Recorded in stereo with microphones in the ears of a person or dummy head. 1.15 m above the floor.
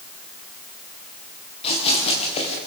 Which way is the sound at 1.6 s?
35° left (ahead or behind).